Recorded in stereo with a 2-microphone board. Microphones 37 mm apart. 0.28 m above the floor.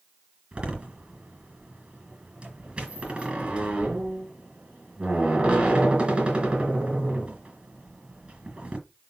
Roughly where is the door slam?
Right.